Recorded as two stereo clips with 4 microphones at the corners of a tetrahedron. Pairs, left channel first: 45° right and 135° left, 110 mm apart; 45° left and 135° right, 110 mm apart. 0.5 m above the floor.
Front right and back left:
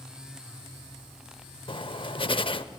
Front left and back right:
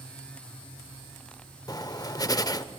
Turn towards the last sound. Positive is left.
turn(degrees=-10)